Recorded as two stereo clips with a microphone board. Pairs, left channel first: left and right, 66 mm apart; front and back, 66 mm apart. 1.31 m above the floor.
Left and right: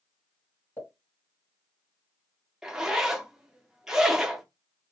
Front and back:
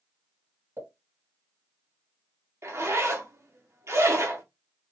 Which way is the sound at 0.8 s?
135° left.